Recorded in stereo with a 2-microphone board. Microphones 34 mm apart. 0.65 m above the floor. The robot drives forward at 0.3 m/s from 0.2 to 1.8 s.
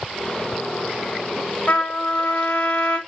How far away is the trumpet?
About 1.9 m.